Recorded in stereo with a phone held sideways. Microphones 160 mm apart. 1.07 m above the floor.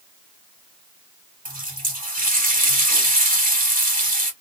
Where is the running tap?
65° right (ahead or behind), 1.3 m.